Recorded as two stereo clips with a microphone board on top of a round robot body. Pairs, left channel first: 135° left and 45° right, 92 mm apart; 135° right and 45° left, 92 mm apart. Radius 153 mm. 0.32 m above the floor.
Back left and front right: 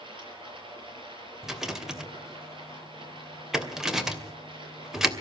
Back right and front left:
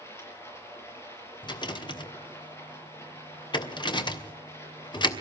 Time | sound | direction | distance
0.0 | running water | 75° right | 7 m
1.4 | a rattle | 130° right | 2.5 m